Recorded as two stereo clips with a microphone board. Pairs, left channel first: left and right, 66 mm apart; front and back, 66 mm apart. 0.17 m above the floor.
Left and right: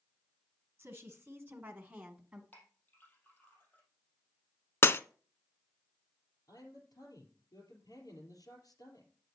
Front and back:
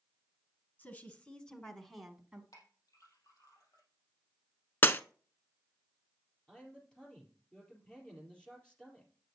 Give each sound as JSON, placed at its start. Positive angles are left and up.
{"t": 0.8, "sound": "a woman speaking", "azimuth_deg": -50, "distance_m": 2.0}
{"t": 2.5, "sound": "a clink", "azimuth_deg": 30, "distance_m": 4.0}
{"t": 4.8, "sound": "breaking glass", "azimuth_deg": 50, "distance_m": 0.5}
{"t": 6.5, "sound": "a man speaking", "azimuth_deg": 75, "distance_m": 4.5}